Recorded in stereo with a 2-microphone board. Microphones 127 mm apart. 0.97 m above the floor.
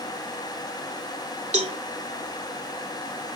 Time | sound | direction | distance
1.5 | a cowbell | 60° right (ahead or behind) | ?